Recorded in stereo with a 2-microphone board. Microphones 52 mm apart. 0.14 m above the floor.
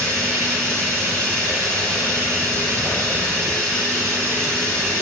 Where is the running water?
80° right, 6 m.